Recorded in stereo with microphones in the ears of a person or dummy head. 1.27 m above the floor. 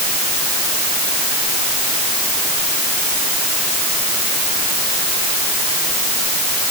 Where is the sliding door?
I don't hear a sliding door.